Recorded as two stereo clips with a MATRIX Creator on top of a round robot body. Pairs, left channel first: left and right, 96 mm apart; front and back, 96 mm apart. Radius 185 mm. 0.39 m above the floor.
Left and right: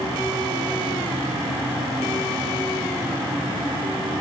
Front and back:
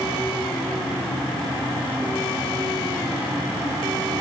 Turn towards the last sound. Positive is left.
No sound to turn to.